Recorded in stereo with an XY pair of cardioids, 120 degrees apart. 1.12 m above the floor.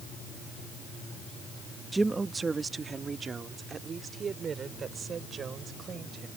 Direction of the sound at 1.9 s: 15° right.